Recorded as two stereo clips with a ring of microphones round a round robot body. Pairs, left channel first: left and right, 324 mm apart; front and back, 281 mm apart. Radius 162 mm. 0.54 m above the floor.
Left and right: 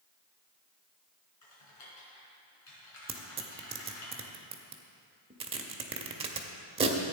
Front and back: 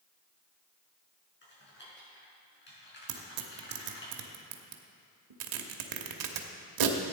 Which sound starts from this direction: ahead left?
Typing on a keyboard, at 1.4 s.